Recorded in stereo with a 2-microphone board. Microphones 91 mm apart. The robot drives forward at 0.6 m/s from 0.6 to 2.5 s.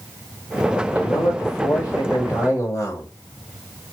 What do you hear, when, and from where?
0.9 s a man speaking: 45° left (ahead or behind), 1.6 m; by 3.1 s 40° left (ahead or behind), 1.8 m